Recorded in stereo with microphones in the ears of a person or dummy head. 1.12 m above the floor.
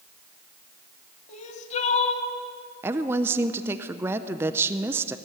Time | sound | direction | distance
1.3 | crying | 40° left (ahead or behind) | 2 m
2.8 | a woman speaking | 10° right (ahead or behind) | 0.5 m